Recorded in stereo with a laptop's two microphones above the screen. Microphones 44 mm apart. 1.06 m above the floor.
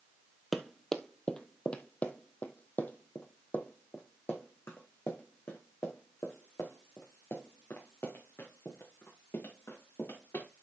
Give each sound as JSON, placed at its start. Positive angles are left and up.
{"t": 0.5, "sound": "running footsteps", "side_deg": 5, "distance_m": 1.2}